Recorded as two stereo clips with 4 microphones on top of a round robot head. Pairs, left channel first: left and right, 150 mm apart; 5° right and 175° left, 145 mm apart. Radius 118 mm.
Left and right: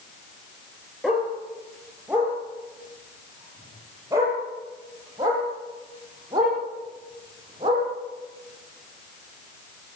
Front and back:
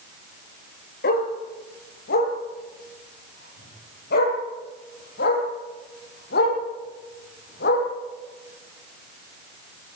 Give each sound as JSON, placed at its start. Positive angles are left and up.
{"t": 1.0, "sound": "a dog barking", "azimuth_deg": 0, "distance_m": 5.0}